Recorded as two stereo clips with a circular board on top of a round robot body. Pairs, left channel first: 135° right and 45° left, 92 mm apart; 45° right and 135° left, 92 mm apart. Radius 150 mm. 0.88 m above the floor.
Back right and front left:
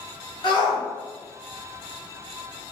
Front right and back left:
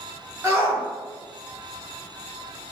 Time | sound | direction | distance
0.4 | a shout | 170° right | 1.8 m